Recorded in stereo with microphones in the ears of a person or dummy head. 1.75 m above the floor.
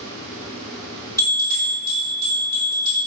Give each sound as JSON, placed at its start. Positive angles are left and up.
{"t": 1.2, "sound": "a bell", "side_deg": 20, "distance_m": 1.1}